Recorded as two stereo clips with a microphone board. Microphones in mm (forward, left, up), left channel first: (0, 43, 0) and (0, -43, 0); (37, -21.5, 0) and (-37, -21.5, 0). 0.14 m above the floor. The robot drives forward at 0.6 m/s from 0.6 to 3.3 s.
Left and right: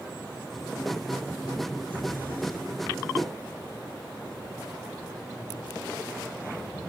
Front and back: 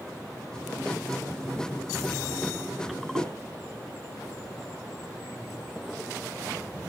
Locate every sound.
3.1 s a whoosh: 175° right, 1.0 m